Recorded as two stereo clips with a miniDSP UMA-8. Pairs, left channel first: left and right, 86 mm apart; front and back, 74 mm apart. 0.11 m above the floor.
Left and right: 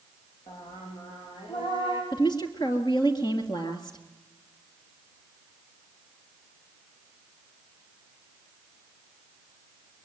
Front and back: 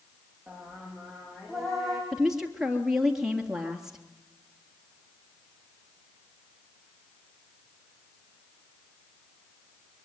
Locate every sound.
0.5 s singing: 90° left, 6 m
2.1 s a woman speaking: 100° left, 3 m